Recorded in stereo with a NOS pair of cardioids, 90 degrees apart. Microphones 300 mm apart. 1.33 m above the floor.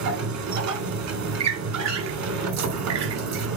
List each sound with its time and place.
0.0 s a machine running: 70° right, 3 m
1.4 s a squeak: 65° right, 2.5 m